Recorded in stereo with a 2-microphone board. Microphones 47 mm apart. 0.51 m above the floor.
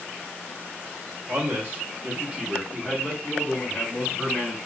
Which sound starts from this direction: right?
A man speaking, at 1.3 s.